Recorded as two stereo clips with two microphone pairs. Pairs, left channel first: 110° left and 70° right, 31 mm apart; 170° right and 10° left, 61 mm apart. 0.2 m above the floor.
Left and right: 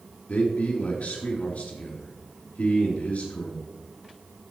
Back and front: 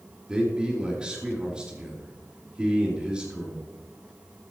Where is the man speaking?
80° left, 4 m.